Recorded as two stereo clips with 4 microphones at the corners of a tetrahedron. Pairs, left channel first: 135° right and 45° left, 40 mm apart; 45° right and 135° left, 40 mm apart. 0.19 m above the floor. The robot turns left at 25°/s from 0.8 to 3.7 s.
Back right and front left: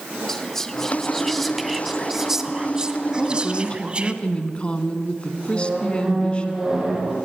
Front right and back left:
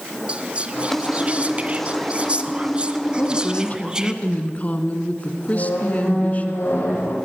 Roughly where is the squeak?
Ahead right.